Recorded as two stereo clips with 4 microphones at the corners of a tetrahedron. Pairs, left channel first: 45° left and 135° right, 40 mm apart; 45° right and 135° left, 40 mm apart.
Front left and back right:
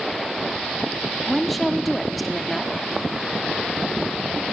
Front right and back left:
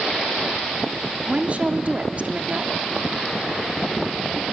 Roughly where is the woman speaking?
Behind left.